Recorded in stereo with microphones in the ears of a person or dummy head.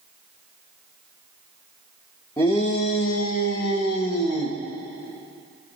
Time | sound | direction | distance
2.4 | a shout | 15° left (ahead or behind) | 0.8 m